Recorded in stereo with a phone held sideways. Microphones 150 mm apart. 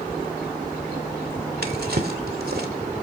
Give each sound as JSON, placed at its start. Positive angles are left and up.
{"t": 1.6, "sound": "a drawer", "side_deg": -75, "distance_m": 2.5}